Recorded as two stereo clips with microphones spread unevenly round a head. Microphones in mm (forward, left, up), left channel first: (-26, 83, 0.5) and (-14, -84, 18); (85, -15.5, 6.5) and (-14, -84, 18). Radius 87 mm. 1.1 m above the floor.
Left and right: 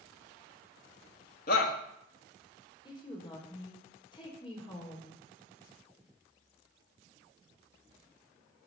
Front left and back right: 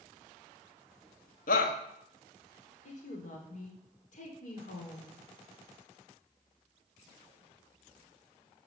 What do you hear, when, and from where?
1.5 s a shout: 55° left, 1.6 m
2.9 s a woman speaking: 30° left, 3.5 m